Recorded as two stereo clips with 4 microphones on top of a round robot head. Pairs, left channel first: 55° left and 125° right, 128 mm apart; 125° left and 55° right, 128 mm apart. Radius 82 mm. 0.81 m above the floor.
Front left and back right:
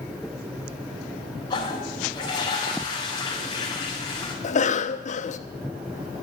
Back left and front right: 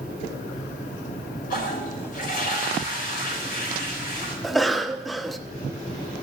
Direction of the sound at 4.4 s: 35° left.